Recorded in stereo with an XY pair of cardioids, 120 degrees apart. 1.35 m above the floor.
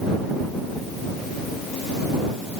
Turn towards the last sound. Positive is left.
No sound to turn to.